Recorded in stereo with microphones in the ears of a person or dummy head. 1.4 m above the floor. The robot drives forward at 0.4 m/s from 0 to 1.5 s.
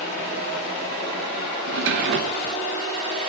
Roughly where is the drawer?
Right.